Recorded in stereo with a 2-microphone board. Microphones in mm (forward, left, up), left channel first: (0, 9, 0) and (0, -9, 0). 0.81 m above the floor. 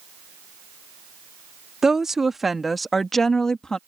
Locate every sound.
1.8 s a woman speaking: 30° right (ahead or behind); by 3.8 s 35° left (ahead or behind)